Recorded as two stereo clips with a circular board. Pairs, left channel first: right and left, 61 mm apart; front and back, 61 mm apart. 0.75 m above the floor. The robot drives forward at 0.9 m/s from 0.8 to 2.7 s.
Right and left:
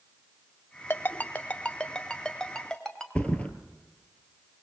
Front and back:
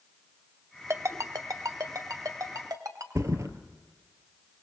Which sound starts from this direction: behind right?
A ringtone, at 0.9 s.